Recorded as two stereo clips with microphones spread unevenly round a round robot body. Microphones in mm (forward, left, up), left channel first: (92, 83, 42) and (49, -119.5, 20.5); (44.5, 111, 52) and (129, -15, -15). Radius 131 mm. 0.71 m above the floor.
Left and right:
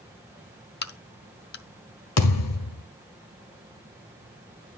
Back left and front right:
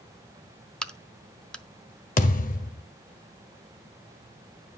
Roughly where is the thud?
Left.